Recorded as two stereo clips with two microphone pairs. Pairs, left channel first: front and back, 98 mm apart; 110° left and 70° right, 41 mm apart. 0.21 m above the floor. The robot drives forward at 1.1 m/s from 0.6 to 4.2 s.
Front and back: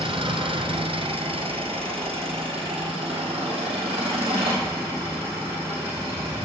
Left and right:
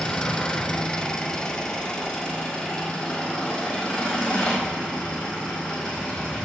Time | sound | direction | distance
0.0 | an engine running | straight behind | 1.7 m